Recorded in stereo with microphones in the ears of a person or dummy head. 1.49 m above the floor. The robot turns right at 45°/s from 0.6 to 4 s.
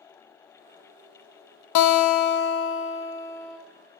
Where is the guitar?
95° left, 0.7 m; by 3.6 s 175° left, 0.7 m.